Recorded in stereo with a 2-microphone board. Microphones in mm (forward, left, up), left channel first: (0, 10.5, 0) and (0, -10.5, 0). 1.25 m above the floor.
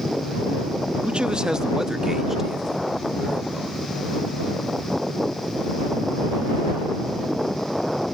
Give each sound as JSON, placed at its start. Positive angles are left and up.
{"t": 1.0, "sound": "a man speaking", "side_deg": -65}